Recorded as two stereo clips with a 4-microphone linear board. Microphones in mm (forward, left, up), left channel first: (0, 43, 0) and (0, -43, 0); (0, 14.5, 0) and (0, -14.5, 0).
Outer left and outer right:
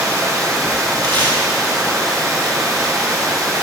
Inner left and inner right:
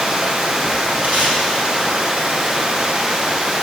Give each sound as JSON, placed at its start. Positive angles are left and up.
{"t": 0.0, "sound": "running water", "side_deg": -40, "distance_m": 1.2}
{"t": 1.0, "sound": "tape being pulled", "side_deg": -80, "distance_m": 2.5}